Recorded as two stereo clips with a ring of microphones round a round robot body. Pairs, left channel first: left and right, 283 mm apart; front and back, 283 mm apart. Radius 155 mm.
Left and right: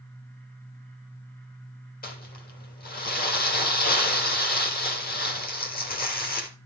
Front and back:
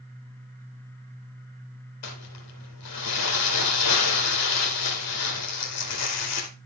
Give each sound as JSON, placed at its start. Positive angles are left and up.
{"t": 2.0, "sound": "crumpling", "azimuth_deg": 30, "distance_m": 3.0}